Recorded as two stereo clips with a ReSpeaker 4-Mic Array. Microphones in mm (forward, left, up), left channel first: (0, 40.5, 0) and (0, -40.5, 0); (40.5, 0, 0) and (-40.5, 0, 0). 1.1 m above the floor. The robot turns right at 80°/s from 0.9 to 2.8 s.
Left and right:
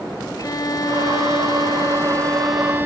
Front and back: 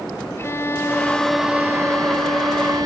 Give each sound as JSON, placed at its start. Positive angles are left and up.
{"t": 0.4, "sound": "a violin", "azimuth_deg": 55}